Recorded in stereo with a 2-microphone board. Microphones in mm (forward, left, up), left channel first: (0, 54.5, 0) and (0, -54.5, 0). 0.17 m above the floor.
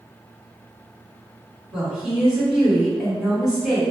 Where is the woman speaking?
10° right (ahead or behind), 1.9 m.